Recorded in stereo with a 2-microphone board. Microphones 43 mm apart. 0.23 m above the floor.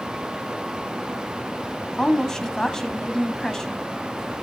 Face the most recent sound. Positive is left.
turn(degrees=15)  # may be behind; listen again after turning